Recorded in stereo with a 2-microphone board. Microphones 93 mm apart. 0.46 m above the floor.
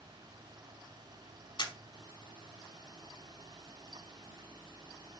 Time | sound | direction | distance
1.6 | a camera shutter | 55° left (ahead or behind) | 0.9 m